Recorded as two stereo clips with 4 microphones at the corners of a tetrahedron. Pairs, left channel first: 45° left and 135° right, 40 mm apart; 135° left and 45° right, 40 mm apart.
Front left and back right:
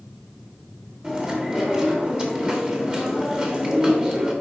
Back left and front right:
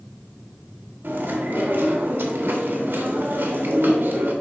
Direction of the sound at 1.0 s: 70° right.